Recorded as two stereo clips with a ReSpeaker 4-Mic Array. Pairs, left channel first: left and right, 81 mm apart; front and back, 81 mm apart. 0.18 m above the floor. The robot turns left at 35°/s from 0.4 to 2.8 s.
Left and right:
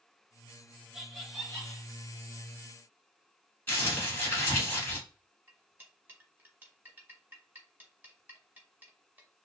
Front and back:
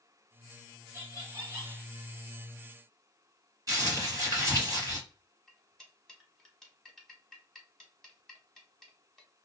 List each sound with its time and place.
0.9 s laughter: 175° right, 1.2 m; by 1.9 s 155° left, 1.2 m
3.7 s crumpling: 155° left, 1.8 m
5.5 s cutlery clinking: 80° right, 0.8 m